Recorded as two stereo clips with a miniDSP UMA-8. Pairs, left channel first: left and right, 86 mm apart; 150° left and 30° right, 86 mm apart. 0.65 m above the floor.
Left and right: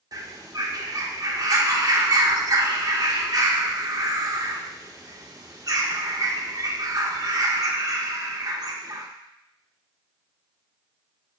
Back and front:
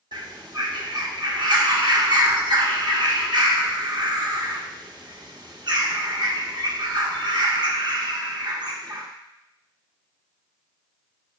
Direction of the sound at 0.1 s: 50° right.